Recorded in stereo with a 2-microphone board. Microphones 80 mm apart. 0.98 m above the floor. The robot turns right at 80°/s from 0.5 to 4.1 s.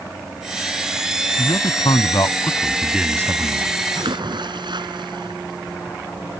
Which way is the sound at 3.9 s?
60° right (ahead or behind).